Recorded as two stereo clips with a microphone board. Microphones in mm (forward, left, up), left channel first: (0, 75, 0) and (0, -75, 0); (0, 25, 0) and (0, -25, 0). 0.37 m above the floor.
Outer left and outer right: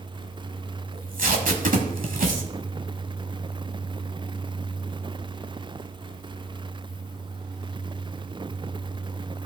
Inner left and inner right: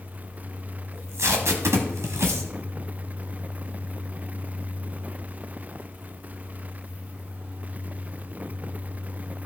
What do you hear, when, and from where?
0.9 s tape being pulled: 70° right (ahead or behind), 1.2 m